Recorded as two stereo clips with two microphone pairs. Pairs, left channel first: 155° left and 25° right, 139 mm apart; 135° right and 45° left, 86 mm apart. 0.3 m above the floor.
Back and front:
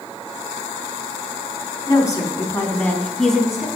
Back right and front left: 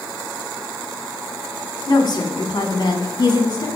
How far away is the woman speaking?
About 3 m.